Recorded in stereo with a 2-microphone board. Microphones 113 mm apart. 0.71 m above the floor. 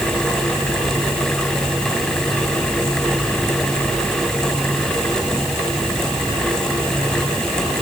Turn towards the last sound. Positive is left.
No sound to turn to.